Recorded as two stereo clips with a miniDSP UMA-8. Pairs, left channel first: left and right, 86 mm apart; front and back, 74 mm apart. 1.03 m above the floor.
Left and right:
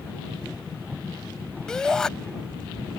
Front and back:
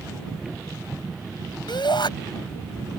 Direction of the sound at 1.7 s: 5° left.